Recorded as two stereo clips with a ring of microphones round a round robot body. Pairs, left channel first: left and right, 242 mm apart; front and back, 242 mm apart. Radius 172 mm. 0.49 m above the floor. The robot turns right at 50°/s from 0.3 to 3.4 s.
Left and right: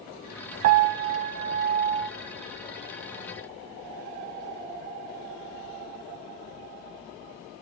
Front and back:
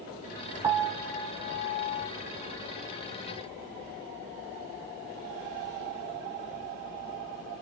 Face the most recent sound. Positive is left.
turn(degrees=35)